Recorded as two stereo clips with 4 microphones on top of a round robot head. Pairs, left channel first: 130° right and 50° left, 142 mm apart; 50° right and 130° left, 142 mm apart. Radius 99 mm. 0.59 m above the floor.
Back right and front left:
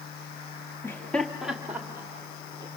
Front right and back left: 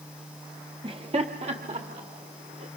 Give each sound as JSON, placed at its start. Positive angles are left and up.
{"t": 0.8, "sound": "laughter", "azimuth_deg": 165, "distance_m": 1.7}